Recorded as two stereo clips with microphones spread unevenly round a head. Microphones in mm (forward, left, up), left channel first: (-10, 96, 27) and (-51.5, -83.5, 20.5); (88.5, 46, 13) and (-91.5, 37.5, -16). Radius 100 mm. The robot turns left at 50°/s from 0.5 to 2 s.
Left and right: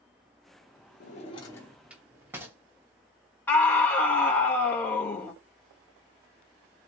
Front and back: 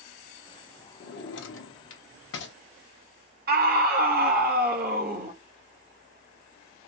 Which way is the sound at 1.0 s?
30° left.